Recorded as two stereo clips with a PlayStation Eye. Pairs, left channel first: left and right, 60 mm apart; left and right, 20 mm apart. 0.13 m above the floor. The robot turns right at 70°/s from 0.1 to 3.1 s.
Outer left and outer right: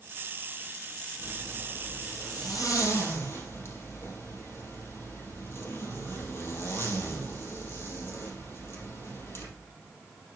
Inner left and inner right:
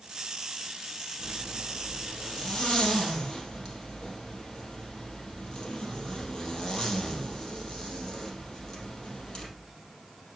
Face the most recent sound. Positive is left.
turn(degrees=135)